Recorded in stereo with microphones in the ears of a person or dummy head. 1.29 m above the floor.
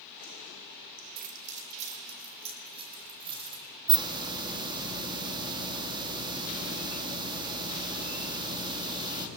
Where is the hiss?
25° right (ahead or behind), 2.5 m.